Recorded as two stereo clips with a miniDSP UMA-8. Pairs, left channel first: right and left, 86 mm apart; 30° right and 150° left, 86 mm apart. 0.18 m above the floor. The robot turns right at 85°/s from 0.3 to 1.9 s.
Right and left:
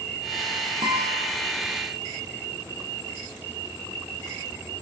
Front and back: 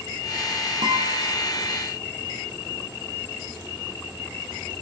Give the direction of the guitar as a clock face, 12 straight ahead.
8 o'clock.